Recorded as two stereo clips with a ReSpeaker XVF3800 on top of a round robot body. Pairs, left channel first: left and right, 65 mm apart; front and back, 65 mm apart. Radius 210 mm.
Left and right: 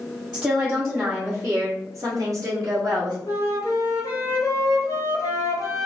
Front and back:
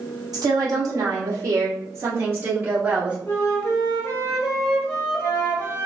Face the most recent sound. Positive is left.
turn(degrees=60)